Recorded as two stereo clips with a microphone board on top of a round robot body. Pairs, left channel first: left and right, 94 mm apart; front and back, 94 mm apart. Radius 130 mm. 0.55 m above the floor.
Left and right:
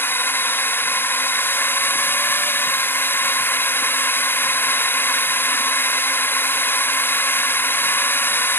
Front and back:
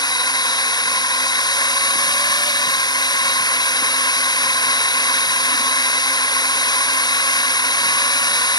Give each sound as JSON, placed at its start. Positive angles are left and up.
{"t": 0.0, "sound": "a drone", "azimuth_deg": 25}